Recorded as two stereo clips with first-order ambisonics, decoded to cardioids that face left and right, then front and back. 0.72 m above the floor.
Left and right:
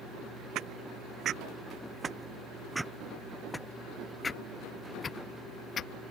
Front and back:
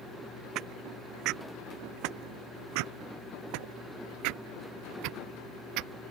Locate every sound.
0.6 s footsteps: 135° right; by 5.9 s 150° left